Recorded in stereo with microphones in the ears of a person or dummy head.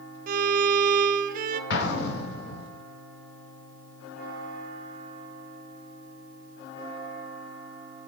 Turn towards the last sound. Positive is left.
turn(degrees=65)  # may be behind; listen again after turning